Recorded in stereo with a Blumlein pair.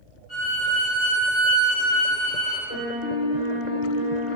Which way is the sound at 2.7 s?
55° left.